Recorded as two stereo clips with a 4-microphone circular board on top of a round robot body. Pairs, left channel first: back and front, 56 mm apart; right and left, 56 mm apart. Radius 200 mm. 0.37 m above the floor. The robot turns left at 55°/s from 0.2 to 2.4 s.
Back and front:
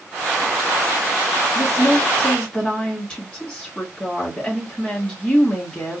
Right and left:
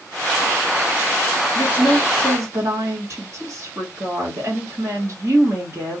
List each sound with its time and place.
1.6 s a woman speaking: 155° left, 1.7 m; by 6.0 s 110° left, 1.7 m